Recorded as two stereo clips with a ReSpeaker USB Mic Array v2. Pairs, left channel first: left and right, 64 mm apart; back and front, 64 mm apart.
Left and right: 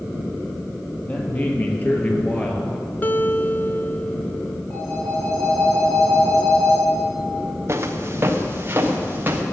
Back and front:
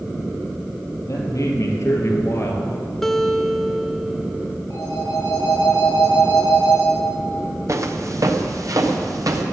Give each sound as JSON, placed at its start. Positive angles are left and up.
{"t": 1.1, "sound": "a man speaking", "azimuth_deg": 150, "distance_m": 3.5}
{"t": 3.0, "sound": "a guitar", "azimuth_deg": 100, "distance_m": 0.6}
{"t": 4.7, "sound": "a phone ringing", "azimuth_deg": 145, "distance_m": 6.5}
{"t": 7.7, "sound": "footsteps", "azimuth_deg": -40, "distance_m": 1.8}